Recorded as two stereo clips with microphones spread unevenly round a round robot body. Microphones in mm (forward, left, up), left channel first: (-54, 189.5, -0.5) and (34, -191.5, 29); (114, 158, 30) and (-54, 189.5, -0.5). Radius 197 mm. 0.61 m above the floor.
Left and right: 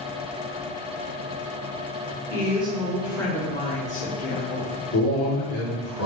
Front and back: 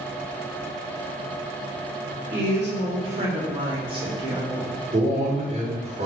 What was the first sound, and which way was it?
A woman speaking, 150° right.